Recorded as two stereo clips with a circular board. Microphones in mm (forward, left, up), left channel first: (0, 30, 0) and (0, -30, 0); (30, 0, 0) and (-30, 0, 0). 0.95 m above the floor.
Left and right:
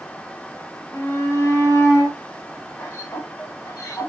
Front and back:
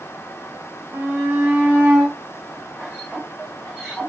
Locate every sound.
0.9 s a shout: 120° left, 1.9 m; by 4.1 s 80° left, 3.5 m